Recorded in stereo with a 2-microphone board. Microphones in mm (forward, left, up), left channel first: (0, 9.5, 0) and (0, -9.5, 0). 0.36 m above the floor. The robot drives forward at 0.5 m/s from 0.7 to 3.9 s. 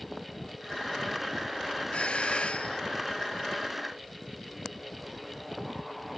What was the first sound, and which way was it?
A doorbell, 80° left.